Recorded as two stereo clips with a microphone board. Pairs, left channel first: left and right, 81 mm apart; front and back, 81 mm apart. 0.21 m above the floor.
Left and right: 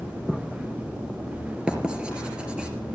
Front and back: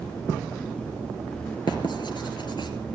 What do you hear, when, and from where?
1.7 s writing: 15° right, 2.5 m